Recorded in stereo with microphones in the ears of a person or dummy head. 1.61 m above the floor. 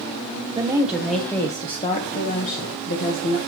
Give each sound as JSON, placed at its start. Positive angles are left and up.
{"t": 0.6, "sound": "a woman speaking", "side_deg": -20, "distance_m": 1.0}